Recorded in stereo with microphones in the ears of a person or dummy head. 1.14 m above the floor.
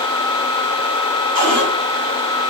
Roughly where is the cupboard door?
Right.